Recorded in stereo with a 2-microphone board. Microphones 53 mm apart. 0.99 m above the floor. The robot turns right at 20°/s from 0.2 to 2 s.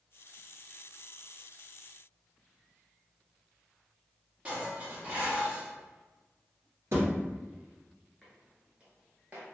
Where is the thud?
55° right (ahead or behind), 1.6 m.